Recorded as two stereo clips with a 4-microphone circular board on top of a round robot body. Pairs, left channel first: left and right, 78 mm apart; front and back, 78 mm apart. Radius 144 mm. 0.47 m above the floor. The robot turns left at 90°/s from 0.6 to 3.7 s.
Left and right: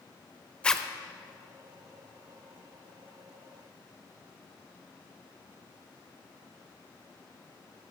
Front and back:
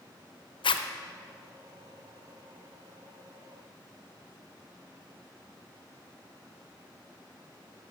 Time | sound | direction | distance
0.6 | a zipper | 15° left | 0.6 m